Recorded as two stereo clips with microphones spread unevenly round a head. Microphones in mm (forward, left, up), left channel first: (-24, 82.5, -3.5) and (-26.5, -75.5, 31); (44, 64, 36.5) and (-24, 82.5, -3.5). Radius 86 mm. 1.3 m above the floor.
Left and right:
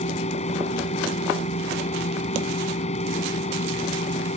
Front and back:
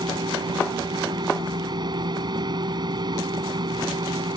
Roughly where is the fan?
Behind left.